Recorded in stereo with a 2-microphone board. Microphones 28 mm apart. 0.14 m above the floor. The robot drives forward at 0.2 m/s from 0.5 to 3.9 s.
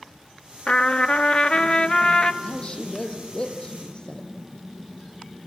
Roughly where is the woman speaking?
Left.